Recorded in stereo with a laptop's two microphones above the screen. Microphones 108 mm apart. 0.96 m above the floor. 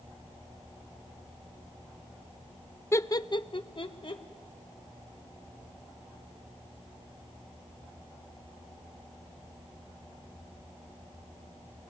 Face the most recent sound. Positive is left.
turn(degrees=50)  # may be behind; listen again after turning